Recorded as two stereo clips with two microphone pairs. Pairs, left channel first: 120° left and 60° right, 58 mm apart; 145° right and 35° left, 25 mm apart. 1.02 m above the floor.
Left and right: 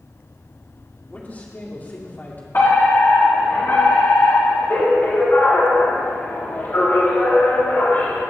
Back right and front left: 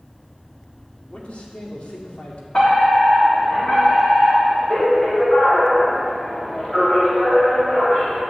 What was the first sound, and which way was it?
A man speaking, straight behind.